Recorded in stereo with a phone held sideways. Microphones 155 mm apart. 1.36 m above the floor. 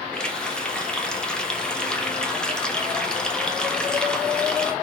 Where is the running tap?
5° left (ahead or behind), 1.1 m.